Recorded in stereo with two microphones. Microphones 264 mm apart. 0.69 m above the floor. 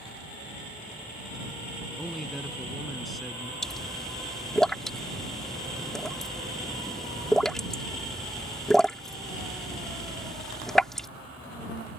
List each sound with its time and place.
2.0 s a man speaking: centre (ahead or behind)
3.6 s a pop: centre (ahead or behind)